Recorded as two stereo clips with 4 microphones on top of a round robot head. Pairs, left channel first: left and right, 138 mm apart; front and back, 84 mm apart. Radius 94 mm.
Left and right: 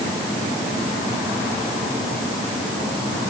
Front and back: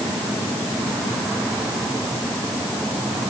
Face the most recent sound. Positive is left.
No sound to turn to.